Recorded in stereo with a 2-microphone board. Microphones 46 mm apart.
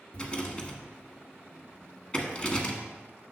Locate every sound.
0.1 s a rattle: 20° left (ahead or behind), 1.3 m